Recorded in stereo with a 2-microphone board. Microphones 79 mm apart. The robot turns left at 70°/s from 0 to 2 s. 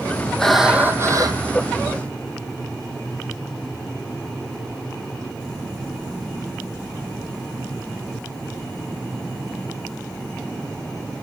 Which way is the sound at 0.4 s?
10° left.